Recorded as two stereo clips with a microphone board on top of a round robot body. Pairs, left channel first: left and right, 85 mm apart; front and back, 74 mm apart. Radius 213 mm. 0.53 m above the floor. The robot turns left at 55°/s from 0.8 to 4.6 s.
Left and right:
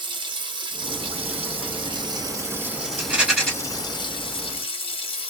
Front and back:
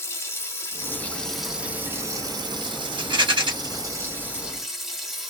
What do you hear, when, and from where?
0.0 s running water: 55° right, 1.0 m; by 5.3 s 95° left, 1.0 m
3.0 s a rattle: 155° right, 1.4 m; by 3.5 s 175° left, 1.4 m